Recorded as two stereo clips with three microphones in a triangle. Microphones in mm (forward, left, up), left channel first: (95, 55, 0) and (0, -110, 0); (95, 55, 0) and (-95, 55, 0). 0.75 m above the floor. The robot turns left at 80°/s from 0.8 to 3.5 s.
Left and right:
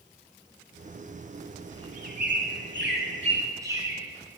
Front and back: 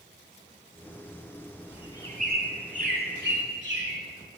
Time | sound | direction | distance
1.7 | a bird | 50° right | 1.6 m